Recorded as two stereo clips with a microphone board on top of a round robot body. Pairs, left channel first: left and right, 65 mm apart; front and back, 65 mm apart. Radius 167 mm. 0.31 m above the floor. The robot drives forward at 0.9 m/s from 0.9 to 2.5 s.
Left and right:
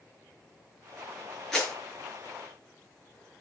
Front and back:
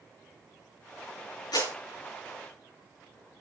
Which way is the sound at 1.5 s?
5° left.